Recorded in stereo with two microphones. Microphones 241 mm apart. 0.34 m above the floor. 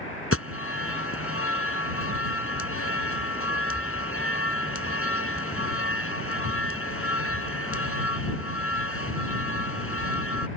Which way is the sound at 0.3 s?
65° left (ahead or behind).